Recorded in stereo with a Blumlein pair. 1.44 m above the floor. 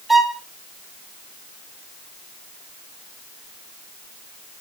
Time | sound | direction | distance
0.1 | a violin | straight ahead | 1.7 m